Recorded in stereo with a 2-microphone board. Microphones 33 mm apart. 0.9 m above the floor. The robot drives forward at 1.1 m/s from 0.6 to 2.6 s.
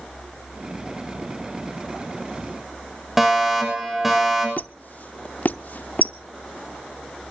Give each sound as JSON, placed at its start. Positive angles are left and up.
{"t": 3.2, "sound": "a fire alarm", "side_deg": -5, "distance_m": 6.5}
{"t": 4.6, "sound": "a squeak", "side_deg": 55, "distance_m": 0.6}